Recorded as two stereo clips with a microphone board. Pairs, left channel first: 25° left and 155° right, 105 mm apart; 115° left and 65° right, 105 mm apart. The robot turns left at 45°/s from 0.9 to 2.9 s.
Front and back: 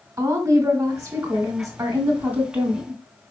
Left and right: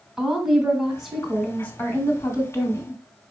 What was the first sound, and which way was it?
A woman speaking, 150° right.